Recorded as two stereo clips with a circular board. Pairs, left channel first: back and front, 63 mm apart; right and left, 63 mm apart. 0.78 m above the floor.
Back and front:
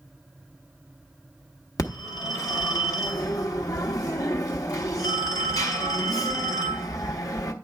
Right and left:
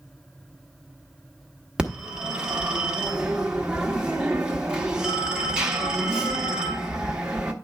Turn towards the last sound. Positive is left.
turn(degrees=165)